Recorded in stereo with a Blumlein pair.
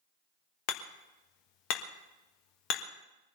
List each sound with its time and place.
0.7 s hammering: 45° left, 1.4 m